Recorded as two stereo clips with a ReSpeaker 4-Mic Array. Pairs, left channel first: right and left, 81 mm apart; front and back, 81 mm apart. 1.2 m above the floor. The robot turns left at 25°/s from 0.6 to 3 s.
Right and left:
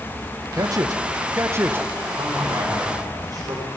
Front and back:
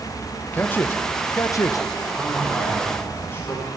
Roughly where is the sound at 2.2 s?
Left.